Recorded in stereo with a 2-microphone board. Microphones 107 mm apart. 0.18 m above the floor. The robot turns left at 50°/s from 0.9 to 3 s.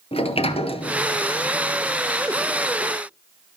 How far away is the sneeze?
No sneeze in this recording.